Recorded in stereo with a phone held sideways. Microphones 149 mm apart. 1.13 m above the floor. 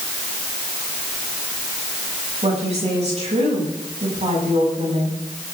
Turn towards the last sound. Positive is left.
turn(degrees=-45)  # may be behind; listen again after turning